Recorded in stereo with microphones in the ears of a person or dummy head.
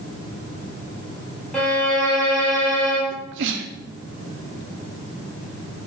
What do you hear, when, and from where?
1.5 s a violin: 15° left (ahead or behind), 2.5 m
3.1 s a sneeze: 65° right (ahead or behind), 0.8 m